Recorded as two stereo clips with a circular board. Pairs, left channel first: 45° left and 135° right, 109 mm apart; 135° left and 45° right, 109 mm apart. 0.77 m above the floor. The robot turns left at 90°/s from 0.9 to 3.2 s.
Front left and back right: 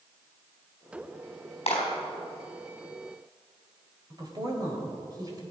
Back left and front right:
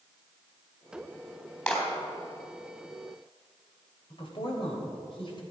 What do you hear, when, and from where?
1.7 s a clap: 55° left, 4 m; by 1.8 s 40° left, 4 m
4.1 s a woman speaking: 170° left, 3 m